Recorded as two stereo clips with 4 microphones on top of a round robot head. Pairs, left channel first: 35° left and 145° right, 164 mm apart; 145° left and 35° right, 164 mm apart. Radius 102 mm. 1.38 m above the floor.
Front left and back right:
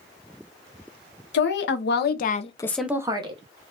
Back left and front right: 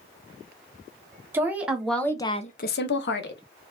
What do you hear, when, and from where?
1.3 s a woman speaking: 40° left, 1.6 m; by 3.4 s 160° left, 1.3 m